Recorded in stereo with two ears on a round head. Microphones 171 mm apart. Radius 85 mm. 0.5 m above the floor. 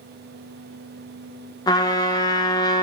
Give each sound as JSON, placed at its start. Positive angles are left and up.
{"t": 1.7, "sound": "a trumpet", "side_deg": 20, "distance_m": 0.6}